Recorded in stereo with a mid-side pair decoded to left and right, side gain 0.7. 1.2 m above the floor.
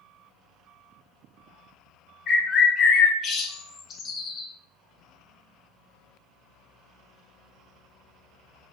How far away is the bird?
About 0.6 m.